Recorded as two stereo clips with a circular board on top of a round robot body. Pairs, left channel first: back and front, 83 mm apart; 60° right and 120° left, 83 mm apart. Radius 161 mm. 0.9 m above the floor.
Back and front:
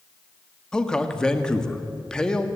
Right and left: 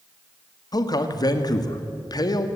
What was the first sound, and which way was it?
A man speaking, 100° right.